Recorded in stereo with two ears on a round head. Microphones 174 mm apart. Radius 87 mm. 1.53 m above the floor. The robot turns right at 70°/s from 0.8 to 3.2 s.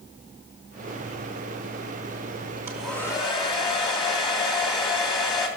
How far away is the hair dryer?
About 2.5 m.